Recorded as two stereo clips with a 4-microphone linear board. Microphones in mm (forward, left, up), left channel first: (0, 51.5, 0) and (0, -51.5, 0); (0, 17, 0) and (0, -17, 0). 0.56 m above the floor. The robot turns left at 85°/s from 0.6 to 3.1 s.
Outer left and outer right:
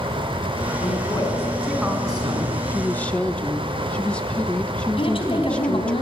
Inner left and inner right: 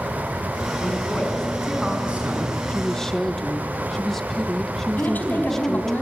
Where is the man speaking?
75° left, 6.5 m; by 2.6 s 75° right, 6.5 m.